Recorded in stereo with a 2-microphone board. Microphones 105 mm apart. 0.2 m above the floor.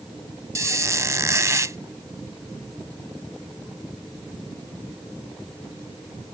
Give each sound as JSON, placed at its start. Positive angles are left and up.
{"t": 0.6, "sound": "a squeak", "side_deg": -30}